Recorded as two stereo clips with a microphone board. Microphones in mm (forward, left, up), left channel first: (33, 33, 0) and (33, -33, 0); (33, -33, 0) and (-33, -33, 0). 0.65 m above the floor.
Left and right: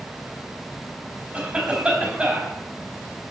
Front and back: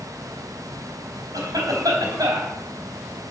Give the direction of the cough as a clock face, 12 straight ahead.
5 o'clock.